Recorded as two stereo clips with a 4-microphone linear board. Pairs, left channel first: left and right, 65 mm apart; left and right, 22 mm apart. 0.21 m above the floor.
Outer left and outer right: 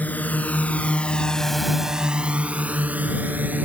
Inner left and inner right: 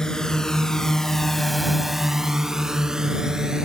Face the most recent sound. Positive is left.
turn(degrees=-25)  # may be behind; listen again after turning